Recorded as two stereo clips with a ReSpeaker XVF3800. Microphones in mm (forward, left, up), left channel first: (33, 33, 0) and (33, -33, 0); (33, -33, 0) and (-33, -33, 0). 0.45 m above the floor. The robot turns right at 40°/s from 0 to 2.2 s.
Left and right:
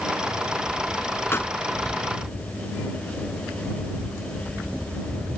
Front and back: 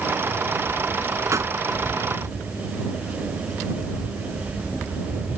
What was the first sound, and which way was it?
A pop, 140° left.